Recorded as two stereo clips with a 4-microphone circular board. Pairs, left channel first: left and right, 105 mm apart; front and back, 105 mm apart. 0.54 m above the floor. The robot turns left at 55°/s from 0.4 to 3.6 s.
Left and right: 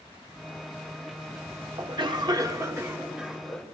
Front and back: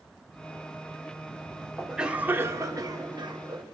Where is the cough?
90° right, 1.0 m; by 3.6 s 170° left, 1.0 m.